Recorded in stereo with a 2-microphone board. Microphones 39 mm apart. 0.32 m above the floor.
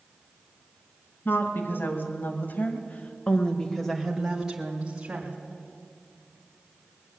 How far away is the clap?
I don't hear a clap.